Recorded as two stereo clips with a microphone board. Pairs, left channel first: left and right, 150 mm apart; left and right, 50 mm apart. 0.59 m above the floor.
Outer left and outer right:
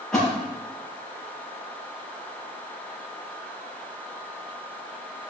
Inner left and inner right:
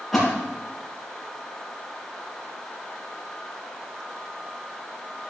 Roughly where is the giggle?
No giggle in this recording.